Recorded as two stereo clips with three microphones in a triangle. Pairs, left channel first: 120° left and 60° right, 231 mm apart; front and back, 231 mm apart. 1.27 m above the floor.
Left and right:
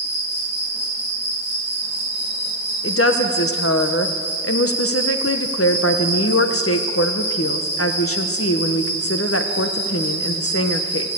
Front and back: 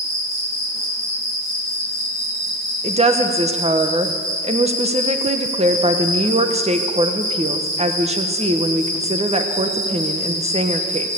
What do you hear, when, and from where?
0.0 s an insect: 145° right, 8.5 m
2.8 s a woman speaking: 120° left, 1.0 m